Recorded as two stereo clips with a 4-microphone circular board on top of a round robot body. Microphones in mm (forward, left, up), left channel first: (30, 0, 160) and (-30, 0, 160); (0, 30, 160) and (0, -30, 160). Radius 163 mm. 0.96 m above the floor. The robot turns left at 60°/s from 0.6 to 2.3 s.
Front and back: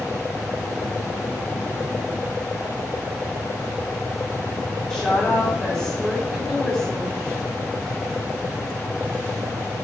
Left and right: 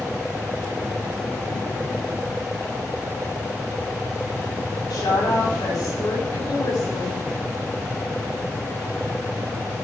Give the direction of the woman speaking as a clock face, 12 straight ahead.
9 o'clock.